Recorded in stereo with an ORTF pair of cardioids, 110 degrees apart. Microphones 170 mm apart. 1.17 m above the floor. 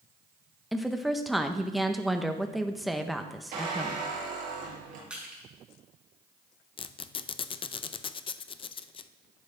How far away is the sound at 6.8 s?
About 0.5 m.